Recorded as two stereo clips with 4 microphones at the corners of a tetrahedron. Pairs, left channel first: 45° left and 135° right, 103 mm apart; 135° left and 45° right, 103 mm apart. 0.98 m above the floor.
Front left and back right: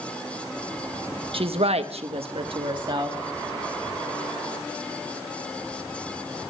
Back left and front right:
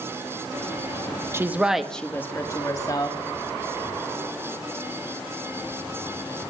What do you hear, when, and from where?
1.3 s a woman speaking: 110° right, 1.1 m; by 3.2 s straight behind, 2.0 m